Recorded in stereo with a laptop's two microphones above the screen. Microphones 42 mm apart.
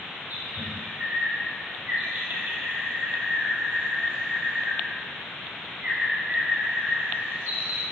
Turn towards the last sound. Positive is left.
turn(degrees=-55)  # may be behind; listen again after turning